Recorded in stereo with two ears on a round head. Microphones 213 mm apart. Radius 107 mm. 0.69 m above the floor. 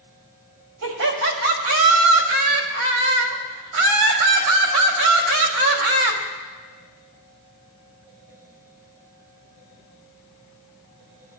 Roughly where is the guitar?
No guitar in this recording.